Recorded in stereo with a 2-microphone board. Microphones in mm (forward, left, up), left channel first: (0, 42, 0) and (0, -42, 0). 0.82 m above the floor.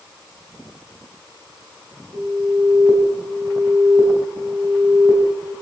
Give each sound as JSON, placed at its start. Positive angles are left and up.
{"t": 2.1, "sound": "an alarm", "side_deg": -40, "distance_m": 5.0}